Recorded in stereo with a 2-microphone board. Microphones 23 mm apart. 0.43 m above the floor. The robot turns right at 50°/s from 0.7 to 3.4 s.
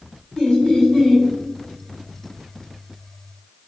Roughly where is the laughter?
Left.